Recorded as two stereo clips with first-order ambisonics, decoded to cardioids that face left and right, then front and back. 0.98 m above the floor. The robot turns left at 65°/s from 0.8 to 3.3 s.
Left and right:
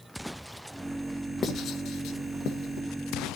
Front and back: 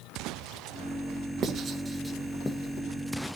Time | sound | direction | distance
1.4 | writing | 145° left | 1.0 m